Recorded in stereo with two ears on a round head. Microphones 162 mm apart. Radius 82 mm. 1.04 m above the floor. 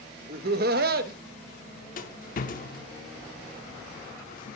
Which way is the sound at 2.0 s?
45° left (ahead or behind).